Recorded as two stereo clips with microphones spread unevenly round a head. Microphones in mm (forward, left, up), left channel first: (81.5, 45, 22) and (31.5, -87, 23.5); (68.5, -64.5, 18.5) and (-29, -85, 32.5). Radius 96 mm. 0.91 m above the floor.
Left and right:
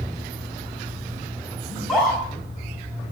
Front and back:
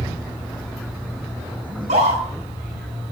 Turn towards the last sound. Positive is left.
turn(degrees=160)